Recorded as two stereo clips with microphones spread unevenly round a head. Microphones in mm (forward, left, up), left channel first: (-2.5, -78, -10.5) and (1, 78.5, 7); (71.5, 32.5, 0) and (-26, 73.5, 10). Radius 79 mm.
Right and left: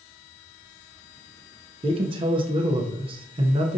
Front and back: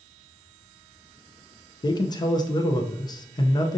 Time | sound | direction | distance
1.8 | a man speaking | 30° left | 0.5 m